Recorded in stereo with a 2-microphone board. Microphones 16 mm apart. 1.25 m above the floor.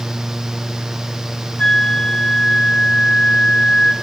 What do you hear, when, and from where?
1.6 s a flute: 75° left (ahead or behind), 2.0 m